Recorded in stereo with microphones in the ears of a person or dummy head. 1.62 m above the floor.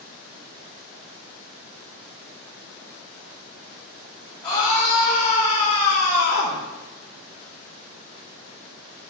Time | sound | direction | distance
4.4 | a scream | 20° left (ahead or behind) | 3 m